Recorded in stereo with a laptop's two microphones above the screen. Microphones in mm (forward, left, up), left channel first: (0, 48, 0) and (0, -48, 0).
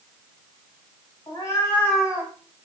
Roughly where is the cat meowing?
Left.